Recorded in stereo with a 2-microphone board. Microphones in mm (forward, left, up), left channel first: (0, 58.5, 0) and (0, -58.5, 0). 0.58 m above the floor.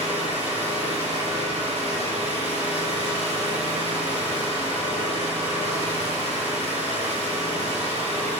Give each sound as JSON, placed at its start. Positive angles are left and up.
{"t": 0.0, "sound": "an engine running", "side_deg": -60, "distance_m": 6.5}